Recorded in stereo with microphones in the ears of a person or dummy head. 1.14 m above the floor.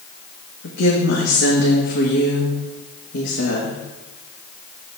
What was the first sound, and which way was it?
A woman speaking, 65° left (ahead or behind).